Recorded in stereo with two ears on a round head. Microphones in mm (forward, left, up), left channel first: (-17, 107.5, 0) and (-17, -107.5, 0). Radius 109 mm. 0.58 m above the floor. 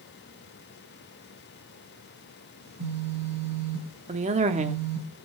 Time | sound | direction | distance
2.6 | a phone buzzing | 65° right (ahead or behind) | 4 m
4.1 | a woman speaking | 30° right (ahead or behind) | 1.0 m